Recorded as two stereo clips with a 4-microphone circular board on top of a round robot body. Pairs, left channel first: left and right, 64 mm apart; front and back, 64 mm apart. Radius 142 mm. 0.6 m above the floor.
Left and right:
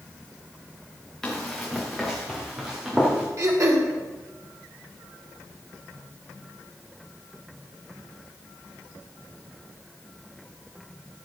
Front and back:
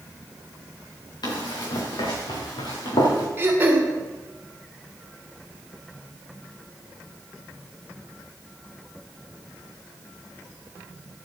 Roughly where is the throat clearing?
Behind right.